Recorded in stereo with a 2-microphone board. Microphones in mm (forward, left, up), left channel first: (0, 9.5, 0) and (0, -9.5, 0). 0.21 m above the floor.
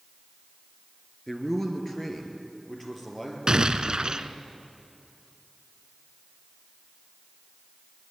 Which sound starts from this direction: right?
An explosion, at 3.5 s.